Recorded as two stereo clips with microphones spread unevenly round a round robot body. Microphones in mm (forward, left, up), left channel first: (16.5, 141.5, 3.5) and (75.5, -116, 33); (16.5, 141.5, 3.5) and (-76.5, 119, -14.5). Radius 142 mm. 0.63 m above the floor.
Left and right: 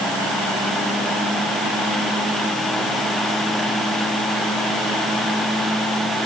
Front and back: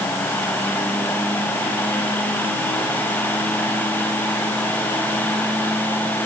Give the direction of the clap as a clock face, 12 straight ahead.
No clap in this recording.